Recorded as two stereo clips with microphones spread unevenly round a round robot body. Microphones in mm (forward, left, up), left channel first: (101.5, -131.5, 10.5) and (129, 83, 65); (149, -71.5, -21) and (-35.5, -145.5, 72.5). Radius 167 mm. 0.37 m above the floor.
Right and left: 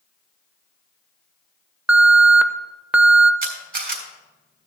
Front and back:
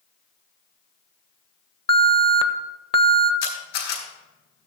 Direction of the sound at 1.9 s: 10° right.